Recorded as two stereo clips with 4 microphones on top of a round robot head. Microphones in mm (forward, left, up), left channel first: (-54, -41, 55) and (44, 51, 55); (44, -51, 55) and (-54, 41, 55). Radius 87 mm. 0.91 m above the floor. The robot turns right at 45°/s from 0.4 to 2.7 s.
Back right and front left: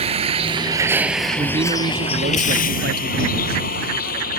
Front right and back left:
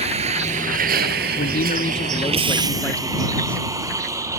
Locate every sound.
0.0 s a vehicle: 90° left; by 4.4 s 155° right
1.4 s a man speaking: 20° right; by 3.7 s 40° left